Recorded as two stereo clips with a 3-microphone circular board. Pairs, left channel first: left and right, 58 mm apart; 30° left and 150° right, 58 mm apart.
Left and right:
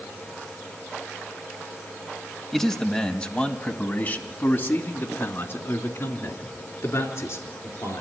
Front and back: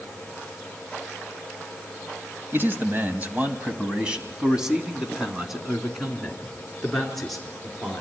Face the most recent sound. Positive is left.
turn(degrees=115)